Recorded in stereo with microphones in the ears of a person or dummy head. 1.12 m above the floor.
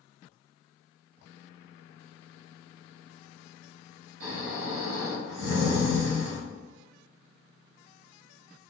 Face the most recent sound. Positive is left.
turn(degrees=-75)  # may be behind; listen again after turning